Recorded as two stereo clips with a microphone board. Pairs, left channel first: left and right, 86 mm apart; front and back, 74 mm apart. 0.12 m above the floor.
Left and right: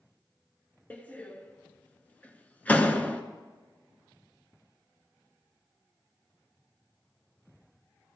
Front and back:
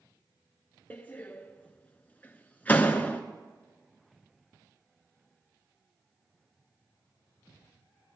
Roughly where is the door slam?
Ahead left.